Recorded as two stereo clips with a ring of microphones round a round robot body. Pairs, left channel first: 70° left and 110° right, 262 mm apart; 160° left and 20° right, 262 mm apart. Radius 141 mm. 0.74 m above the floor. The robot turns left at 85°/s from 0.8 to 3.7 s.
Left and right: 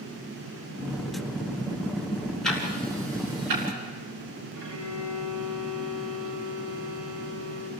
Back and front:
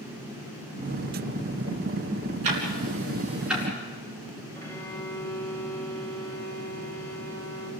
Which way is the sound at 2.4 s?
20° right.